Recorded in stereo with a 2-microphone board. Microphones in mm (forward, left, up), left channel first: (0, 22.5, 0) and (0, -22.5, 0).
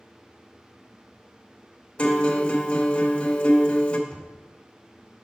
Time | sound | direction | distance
2.0 | a guitar | 30° left (ahead or behind) | 0.8 m
4.1 | knocking | 10° left (ahead or behind) | 1.8 m